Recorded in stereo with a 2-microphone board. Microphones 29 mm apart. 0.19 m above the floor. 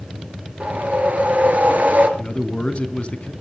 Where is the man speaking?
40° left (ahead or behind), 2 m.